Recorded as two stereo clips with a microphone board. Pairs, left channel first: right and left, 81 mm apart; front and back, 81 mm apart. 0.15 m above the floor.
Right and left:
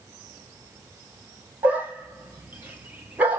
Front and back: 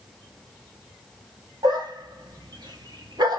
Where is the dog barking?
160° left, 1.1 m.